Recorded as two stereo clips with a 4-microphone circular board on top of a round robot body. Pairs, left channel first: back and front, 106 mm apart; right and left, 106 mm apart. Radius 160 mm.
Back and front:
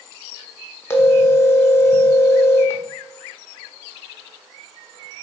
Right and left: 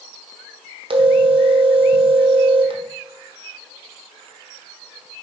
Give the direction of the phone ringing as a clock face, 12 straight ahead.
8 o'clock.